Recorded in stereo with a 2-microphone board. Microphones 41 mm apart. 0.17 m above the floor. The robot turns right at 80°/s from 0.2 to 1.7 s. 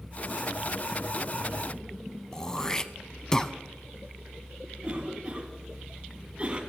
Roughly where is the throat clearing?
Centre.